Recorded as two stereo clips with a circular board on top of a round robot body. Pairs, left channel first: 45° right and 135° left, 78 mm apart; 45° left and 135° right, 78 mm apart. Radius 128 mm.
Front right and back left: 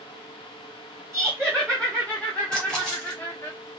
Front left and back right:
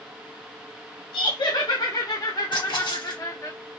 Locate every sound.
1.1 s laughter: 40° left, 2 m; by 3.5 s straight ahead, 1.2 m
2.5 s a splash: 35° left, 3 m